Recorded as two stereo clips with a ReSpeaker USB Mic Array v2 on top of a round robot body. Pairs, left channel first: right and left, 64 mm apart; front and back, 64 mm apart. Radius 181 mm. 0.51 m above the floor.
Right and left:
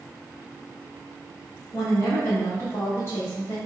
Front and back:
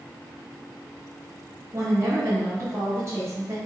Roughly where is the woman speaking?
Behind right.